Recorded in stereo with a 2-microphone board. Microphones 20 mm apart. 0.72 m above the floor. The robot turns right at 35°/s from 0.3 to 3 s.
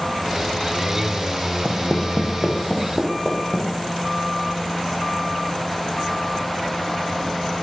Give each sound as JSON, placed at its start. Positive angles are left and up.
{"t": 1.6, "sound": "footsteps", "side_deg": -30, "distance_m": 2.5}